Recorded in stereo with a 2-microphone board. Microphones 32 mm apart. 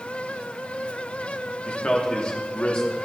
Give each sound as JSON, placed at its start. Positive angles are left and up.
{"t": 1.6, "sound": "a man speaking", "side_deg": 35, "distance_m": 1.5}